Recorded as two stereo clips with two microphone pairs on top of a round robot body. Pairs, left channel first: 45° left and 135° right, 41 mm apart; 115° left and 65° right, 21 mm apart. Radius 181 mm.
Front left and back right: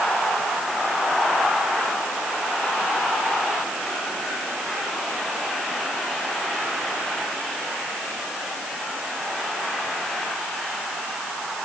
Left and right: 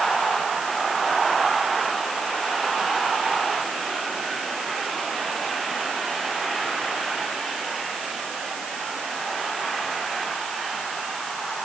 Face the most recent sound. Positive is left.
No sound to turn to.